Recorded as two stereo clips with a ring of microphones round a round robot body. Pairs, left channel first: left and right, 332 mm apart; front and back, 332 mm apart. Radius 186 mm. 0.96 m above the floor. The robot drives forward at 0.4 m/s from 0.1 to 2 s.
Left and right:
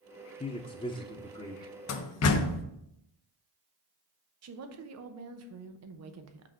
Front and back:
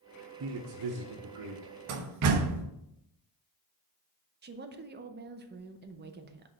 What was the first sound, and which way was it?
A man speaking, 155° left.